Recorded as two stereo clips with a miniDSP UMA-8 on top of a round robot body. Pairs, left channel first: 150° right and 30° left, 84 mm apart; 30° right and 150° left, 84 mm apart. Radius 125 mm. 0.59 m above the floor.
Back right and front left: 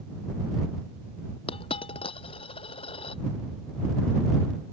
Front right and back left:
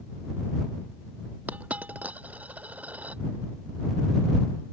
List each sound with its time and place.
1.5 s a dropped coin: 135° right